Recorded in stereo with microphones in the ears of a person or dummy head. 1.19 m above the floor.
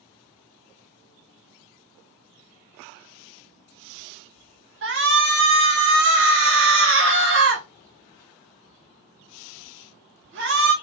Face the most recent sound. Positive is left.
turn(degrees=-60)  # may be behind; listen again after turning